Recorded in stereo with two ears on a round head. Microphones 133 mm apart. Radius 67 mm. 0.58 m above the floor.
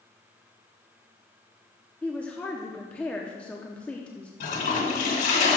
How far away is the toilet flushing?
About 1.7 m.